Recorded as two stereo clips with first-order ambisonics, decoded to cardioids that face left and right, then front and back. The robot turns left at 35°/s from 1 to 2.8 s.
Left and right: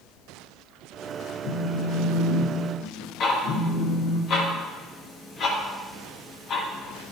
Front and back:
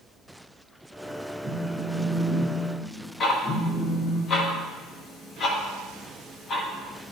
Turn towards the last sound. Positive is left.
turn(degrees=50)